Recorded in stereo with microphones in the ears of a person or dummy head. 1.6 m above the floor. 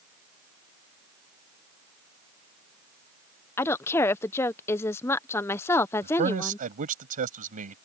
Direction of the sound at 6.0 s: 45° right (ahead or behind).